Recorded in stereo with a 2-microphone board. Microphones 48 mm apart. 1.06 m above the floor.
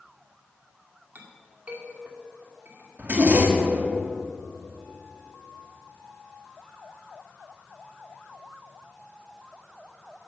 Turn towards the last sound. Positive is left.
turn(degrees=-40)  # may be behind; listen again after turning